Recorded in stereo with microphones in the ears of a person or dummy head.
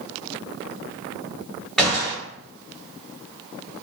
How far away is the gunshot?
About 1.2 m.